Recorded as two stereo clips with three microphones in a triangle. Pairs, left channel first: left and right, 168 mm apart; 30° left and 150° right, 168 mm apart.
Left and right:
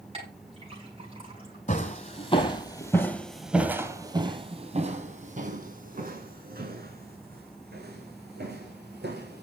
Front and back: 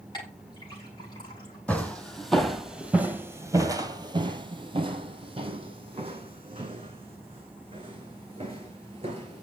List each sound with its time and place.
0.1 s a clink: 35° right, 6.5 m
1.7 s footsteps: 110° left, 1.5 m; by 9.4 s 90° right, 4 m